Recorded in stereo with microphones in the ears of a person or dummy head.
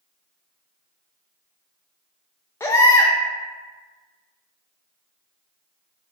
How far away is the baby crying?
About 0.5 m.